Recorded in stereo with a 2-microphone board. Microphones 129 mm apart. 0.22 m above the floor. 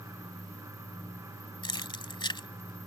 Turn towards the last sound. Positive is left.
turn(degrees=40)  # may be behind; listen again after turning